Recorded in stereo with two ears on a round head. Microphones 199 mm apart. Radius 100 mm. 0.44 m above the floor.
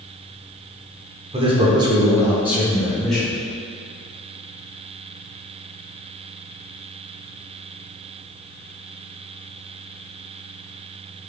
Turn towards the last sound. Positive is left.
turn(degrees=5)  # may be behind; listen again after turning